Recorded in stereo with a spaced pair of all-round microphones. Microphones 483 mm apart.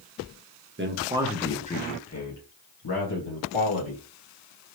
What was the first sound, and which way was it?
A man speaking, 25° right (ahead or behind).